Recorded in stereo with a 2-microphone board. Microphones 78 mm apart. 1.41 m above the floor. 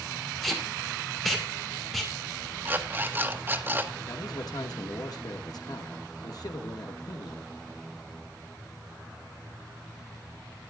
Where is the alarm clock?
25° right (ahead or behind), 1.0 m.